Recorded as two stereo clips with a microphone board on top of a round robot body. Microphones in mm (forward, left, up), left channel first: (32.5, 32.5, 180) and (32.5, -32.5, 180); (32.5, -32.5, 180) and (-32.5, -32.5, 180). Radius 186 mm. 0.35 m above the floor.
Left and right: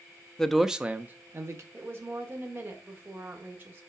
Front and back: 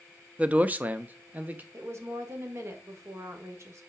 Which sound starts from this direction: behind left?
A man speaking, at 0.4 s.